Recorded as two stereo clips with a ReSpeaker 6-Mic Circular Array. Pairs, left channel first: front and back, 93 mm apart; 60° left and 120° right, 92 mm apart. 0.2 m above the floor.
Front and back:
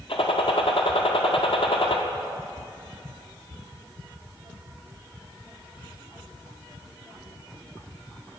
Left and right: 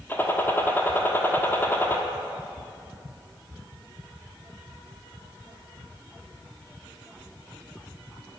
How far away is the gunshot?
About 1.2 m.